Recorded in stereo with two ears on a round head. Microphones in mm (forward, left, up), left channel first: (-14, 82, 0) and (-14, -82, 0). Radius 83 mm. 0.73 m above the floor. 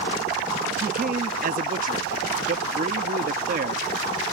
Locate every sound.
0.8 s a man speaking: 45° right (ahead or behind)